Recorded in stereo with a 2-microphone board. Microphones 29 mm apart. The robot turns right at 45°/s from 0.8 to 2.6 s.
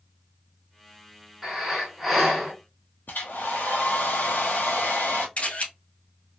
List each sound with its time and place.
1.4 s breathing: 10° right (ahead or behind), 1.8 m; by 2.5 s 10° left (ahead or behind), 1.8 m
3.1 s a hair dryer: 85° left, 0.9 m
5.4 s a camera shutter: 50° left (ahead or behind), 1.9 m